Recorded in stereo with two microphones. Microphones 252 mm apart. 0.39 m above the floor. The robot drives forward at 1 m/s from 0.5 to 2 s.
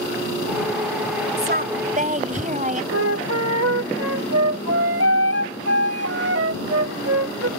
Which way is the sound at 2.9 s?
65° right (ahead or behind).